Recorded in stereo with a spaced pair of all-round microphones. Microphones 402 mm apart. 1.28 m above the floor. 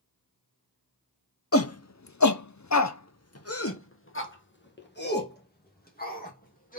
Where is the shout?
35° left (ahead or behind), 0.7 m; by 6.8 s 20° left (ahead or behind), 2.5 m.